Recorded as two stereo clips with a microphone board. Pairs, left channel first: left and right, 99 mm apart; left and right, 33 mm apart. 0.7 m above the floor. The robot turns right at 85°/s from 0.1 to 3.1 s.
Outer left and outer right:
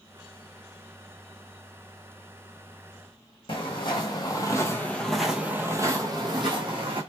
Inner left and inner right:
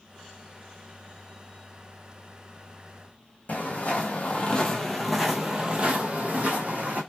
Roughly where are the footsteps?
Left.